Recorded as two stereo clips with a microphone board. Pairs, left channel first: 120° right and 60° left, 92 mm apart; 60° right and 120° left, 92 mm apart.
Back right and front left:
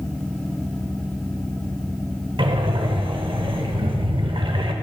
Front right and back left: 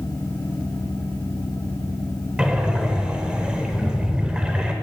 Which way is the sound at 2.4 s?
40° left.